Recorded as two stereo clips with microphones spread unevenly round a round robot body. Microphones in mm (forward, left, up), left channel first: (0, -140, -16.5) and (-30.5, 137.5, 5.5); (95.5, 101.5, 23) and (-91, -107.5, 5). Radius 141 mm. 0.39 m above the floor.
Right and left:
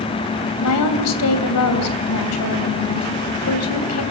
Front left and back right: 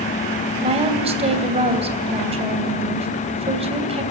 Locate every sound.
0.6 s a woman speaking: 65° right, 2.5 m